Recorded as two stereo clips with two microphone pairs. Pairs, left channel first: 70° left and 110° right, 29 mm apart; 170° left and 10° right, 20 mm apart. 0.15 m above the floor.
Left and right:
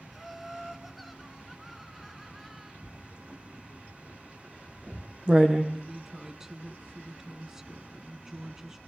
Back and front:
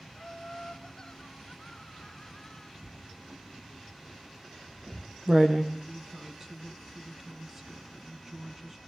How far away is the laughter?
About 1.3 m.